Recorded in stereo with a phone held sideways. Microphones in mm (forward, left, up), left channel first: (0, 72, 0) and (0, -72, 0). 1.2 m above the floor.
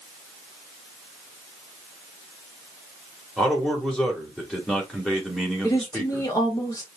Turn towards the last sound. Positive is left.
turn(degrees=25)  # may be behind; listen again after turning